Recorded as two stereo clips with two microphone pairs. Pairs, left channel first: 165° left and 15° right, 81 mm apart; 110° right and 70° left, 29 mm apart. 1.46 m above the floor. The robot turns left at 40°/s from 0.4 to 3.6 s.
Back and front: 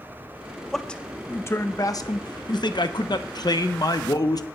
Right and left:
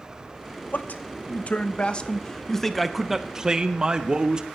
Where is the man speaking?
110° right, 0.9 m; by 4.5 s 135° left, 0.9 m.